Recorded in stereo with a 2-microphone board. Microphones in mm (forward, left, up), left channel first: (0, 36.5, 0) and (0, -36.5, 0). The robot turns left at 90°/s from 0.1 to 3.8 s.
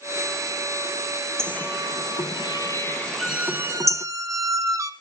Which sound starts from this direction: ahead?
A squeak, at 3.2 s.